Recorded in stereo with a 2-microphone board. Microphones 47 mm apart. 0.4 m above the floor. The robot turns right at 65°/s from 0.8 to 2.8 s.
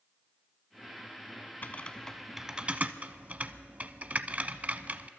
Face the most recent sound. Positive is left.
turn(degrees=-30)  # may be behind; listen again after turning